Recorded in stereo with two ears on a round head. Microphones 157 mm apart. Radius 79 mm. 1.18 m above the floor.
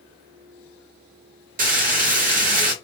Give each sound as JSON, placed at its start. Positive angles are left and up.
{"t": 1.6, "sound": "frying", "side_deg": -50, "distance_m": 1.4}